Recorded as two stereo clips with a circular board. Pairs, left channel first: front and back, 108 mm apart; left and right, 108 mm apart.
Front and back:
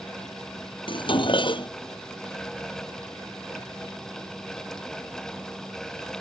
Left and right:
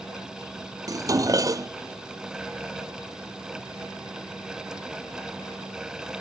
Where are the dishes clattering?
35° right.